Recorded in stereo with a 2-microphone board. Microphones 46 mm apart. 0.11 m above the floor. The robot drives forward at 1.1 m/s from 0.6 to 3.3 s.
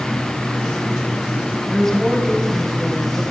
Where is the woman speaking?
5° left (ahead or behind), 4.5 m; by 3.2 s 10° left (ahead or behind), 3 m.